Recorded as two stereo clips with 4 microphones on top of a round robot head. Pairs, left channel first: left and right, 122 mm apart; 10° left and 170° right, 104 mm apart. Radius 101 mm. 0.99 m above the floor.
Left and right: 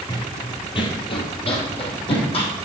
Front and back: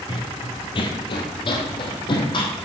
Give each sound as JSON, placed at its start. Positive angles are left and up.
{"t": 0.1, "sound": "running footsteps", "azimuth_deg": 40, "distance_m": 1.4}